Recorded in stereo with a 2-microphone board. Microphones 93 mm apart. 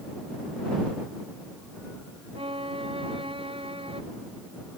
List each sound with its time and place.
2.4 s a violin: 75° right (ahead or behind)